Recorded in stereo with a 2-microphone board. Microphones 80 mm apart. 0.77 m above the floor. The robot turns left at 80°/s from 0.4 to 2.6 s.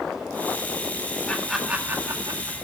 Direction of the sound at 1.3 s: 15° left (ahead or behind).